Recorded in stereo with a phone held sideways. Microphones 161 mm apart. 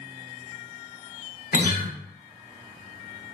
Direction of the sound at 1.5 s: 60° left (ahead or behind).